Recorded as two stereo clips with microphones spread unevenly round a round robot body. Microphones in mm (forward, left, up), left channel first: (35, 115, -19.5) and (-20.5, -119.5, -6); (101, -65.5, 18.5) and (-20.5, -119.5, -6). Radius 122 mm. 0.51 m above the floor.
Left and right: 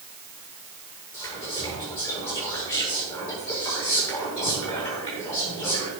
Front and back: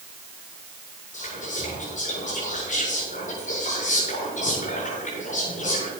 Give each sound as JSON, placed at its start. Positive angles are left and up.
{"t": 1.1, "sound": "whispering", "azimuth_deg": 5, "distance_m": 8.5}